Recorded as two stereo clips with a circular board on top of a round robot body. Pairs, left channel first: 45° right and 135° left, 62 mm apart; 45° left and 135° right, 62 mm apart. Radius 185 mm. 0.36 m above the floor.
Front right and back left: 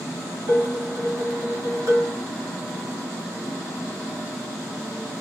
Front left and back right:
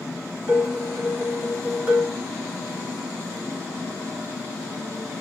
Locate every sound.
0.5 s dishes clattering: 170° left, 2.5 m